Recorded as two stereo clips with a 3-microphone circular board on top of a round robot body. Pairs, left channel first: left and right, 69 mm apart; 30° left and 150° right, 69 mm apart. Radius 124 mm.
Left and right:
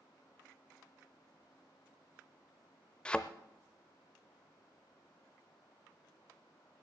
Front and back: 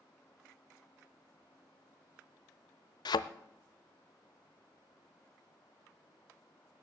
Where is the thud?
15° left, 0.5 m.